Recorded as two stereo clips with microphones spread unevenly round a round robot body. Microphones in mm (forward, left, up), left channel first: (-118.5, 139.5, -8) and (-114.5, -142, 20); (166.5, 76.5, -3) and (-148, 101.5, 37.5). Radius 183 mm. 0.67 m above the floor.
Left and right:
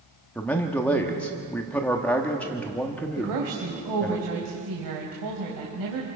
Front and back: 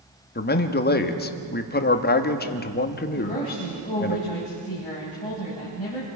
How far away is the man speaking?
About 1.2 m.